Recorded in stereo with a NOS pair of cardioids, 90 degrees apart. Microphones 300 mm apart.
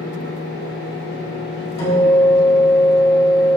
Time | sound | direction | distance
0.0 | a fan | 40° left | 1.5 m
1.8 | a guitar | 55° left | 1.9 m